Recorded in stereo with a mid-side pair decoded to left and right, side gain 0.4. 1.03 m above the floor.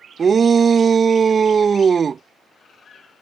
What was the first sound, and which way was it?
A shout, 45° right.